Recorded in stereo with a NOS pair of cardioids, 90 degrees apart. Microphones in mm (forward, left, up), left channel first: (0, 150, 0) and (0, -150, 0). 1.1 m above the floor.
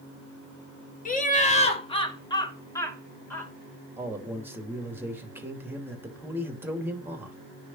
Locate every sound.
1.1 s laughter: 25° left, 2 m; by 3.5 s 5° left, 3 m
4.0 s a man speaking: 5° right, 2.5 m